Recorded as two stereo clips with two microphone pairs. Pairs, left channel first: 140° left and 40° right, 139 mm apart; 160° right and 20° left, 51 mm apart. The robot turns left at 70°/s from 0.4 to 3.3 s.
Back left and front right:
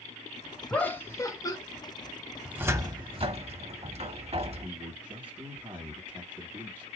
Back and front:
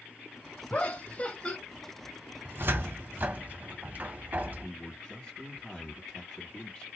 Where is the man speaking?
105° right, 1.9 m.